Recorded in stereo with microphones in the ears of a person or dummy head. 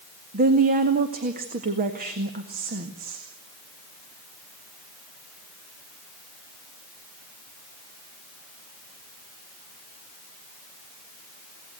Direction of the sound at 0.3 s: 45° right (ahead or behind).